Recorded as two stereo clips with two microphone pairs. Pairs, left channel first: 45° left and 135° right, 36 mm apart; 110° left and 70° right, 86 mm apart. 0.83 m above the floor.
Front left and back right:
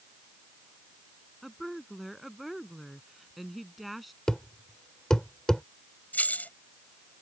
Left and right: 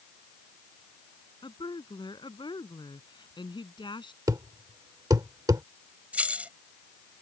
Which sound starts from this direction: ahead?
Keys jangling, at 6.1 s.